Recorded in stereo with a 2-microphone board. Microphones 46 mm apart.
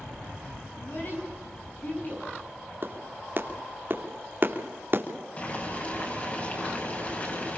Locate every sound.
0.8 s a child speaking: 45° left (ahead or behind), 5.5 m; by 2.3 s 40° left (ahead or behind), 6.5 m
2.8 s a clap: 50° right (ahead or behind), 3 m
5.4 s boiling: 35° left (ahead or behind), 8 m